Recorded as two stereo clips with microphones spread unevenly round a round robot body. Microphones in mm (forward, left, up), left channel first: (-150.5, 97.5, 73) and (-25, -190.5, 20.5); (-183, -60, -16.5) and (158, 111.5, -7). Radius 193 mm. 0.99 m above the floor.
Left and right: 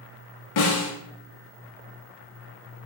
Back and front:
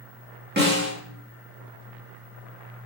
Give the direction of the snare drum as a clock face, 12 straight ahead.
9 o'clock.